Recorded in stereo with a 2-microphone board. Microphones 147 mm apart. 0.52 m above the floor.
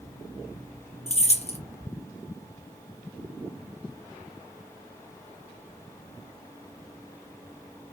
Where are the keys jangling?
45° left (ahead or behind), 0.6 m.